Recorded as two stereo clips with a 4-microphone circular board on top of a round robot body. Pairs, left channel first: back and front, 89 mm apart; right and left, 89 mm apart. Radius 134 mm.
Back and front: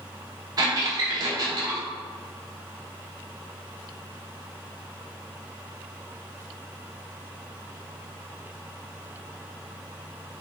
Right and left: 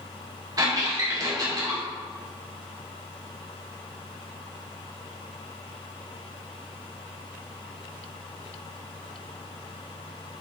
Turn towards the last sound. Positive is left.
turn(degrees=45)